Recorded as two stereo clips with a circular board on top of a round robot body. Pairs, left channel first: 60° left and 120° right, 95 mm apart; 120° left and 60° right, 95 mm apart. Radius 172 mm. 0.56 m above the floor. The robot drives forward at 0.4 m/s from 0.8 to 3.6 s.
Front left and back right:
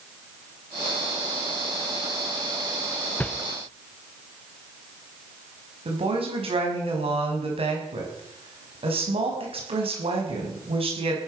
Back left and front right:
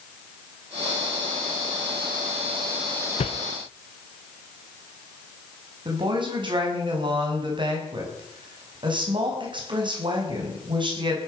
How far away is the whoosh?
About 0.7 m.